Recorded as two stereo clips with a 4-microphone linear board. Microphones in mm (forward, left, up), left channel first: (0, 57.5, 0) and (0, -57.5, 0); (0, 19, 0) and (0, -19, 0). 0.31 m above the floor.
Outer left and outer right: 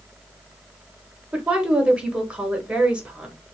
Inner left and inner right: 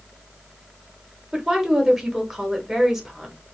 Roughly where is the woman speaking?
Centre.